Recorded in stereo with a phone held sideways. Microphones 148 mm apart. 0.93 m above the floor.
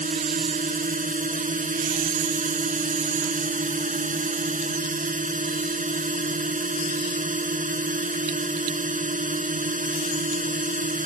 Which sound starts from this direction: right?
A drone, at 0.0 s.